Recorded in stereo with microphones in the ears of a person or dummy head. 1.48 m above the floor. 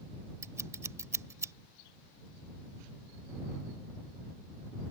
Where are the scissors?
15° right (ahead or behind).